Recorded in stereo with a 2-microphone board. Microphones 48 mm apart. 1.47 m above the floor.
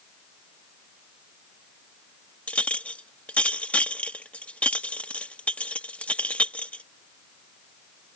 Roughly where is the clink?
Left.